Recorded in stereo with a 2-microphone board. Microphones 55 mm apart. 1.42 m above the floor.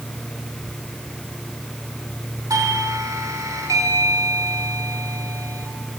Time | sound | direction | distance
2.5 | a doorbell | 80° right | 3 m